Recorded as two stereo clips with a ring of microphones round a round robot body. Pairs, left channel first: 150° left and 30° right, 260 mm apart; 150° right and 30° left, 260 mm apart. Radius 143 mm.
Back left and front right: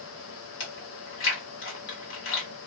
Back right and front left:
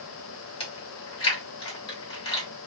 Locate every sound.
0.6 s chewing: 145° left, 1.7 m